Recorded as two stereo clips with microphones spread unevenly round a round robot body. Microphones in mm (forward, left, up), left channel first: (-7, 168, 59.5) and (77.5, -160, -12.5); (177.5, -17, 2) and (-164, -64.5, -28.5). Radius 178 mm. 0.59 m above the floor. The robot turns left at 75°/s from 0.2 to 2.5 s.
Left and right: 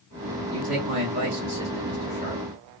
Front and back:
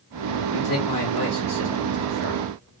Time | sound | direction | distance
0.5 | a man speaking | 35° right | 1.6 m